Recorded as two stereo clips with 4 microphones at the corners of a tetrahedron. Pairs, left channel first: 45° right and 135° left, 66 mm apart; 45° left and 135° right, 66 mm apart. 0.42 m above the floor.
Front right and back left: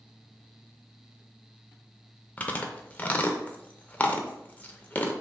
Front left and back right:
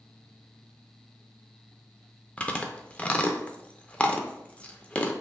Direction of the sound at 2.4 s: 10° right.